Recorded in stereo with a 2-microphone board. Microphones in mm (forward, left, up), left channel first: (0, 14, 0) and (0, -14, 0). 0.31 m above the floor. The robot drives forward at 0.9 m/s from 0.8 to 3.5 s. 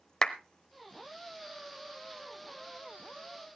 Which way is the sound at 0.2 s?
25° left (ahead or behind).